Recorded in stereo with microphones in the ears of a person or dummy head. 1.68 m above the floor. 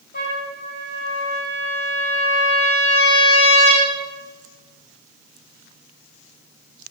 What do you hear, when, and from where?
0.1 s a trumpet: 50° left (ahead or behind), 2.5 m